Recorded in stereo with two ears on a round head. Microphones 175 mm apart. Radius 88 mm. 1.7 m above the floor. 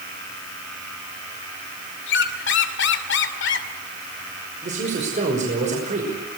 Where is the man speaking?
40° right (ahead or behind), 5.5 m.